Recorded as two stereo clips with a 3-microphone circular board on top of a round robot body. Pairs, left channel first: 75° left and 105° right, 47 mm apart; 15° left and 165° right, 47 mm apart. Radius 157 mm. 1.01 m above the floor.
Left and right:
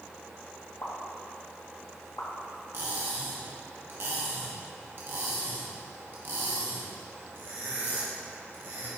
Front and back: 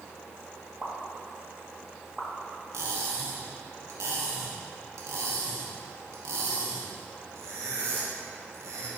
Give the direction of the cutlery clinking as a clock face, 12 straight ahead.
5 o'clock.